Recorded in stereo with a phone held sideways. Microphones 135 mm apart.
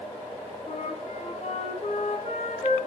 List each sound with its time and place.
0.7 s a flute: 60° left (ahead or behind), 3.5 m